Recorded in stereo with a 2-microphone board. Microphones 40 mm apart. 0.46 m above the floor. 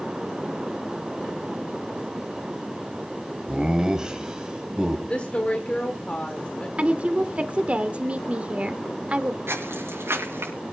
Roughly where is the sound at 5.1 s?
Left.